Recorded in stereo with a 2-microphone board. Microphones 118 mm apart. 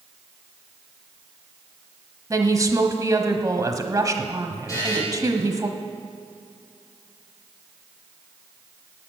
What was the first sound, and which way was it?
A woman speaking, 30° right (ahead or behind).